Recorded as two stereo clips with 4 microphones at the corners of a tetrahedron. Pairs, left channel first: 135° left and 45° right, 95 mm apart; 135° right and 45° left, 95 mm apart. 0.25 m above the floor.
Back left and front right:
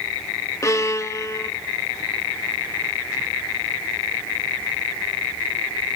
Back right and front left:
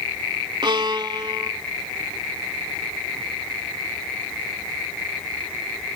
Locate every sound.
0.6 s a violin: 80° left, 0.7 m